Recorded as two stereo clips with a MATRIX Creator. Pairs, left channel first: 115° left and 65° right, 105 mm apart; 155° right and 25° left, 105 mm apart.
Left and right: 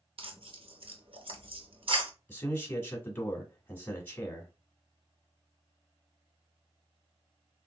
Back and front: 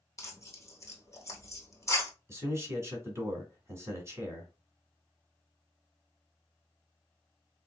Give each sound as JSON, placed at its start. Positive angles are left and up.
{"t": 0.2, "sound": "tearing paper", "azimuth_deg": -95, "distance_m": 0.9}
{"t": 2.3, "sound": "a man speaking", "azimuth_deg": 60, "distance_m": 1.4}